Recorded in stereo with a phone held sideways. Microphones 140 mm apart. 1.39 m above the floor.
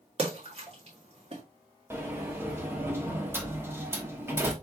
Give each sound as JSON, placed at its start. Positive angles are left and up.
{"t": 0.2, "sound": "a splash", "side_deg": -45, "distance_m": 1.8}
{"t": 1.9, "sound": "a sliding door", "side_deg": -15, "distance_m": 1.0}